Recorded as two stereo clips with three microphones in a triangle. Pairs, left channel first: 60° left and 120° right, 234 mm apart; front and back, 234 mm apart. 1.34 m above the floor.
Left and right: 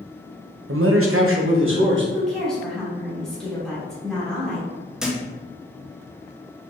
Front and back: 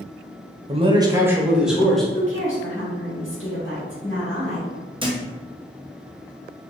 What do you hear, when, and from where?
0.7 s a man speaking: 125° right, 0.6 m; by 2.0 s 90° right, 1.2 m
2.1 s a woman speaking: 30° right, 1.8 m
5.0 s a thud: 155° left, 0.6 m